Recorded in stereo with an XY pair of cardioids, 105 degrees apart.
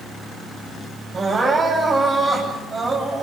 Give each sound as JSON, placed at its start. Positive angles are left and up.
{"t": 1.1, "sound": "crying", "azimuth_deg": -35, "distance_m": 10.0}